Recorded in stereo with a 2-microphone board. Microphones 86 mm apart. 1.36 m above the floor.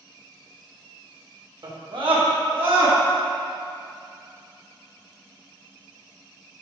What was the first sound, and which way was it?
A scream, 50° right (ahead or behind).